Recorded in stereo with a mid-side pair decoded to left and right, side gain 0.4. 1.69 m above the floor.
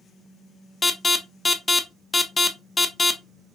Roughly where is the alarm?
Ahead left.